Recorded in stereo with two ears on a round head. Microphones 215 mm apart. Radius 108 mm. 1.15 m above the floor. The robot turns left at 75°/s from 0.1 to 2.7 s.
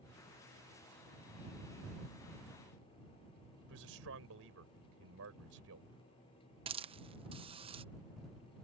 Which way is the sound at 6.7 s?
25° right (ahead or behind).